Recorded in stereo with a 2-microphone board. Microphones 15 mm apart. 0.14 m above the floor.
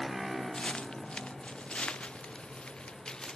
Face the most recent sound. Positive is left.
turn(degrees=40)  # may be behind; listen again after turning